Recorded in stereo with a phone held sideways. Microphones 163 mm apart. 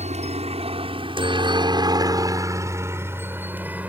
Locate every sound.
0.0 s a helicopter: 45° right (ahead or behind); by 3.9 s 10° right (ahead or behind)